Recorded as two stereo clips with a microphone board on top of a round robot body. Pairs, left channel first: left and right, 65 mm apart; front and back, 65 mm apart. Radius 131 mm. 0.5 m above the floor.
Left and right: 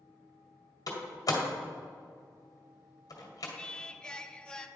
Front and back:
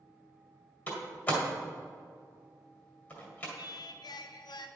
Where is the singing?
10° left, 0.5 m.